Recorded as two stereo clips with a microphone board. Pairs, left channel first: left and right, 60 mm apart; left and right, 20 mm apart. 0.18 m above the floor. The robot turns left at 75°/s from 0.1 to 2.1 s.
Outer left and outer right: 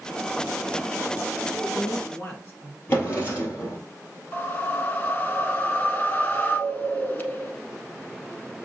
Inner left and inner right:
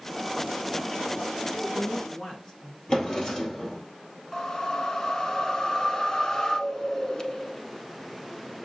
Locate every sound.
1.4 s a woman speaking: 80° left, 1.6 m; by 2.8 s 30° left, 1.6 m
2.9 s a drawer: 35° left (ahead or behind), 2.5 m
4.3 s a whoosh: 30° left (ahead or behind), 0.7 m